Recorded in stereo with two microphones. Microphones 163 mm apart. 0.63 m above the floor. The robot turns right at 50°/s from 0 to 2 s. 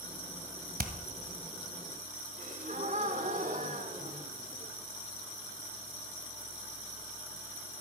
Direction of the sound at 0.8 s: 65° right (ahead or behind).